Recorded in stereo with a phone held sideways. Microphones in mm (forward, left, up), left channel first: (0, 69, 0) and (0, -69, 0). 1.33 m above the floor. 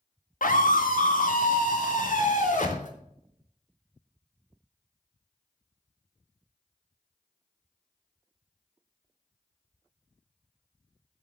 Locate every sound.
0.4 s a scream: 80° left, 1.9 m; by 2.9 s 70° left (ahead or behind), 3.5 m